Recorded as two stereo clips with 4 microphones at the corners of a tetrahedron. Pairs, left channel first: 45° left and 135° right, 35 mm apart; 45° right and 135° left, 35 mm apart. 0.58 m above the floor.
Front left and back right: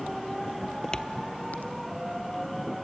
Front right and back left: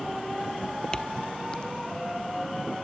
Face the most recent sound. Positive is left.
turn(degrees=15)